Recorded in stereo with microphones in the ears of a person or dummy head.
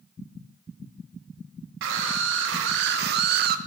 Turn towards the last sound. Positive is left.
turn(degrees=-50)  # may be behind; listen again after turning